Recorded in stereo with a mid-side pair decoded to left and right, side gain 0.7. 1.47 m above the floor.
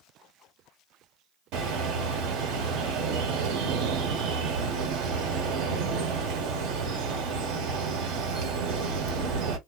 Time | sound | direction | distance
1.5 | a bird | 65° right | 1.2 m